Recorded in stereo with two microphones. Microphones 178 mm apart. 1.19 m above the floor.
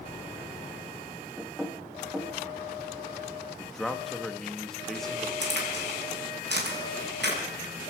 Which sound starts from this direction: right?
A crack, at 5.4 s.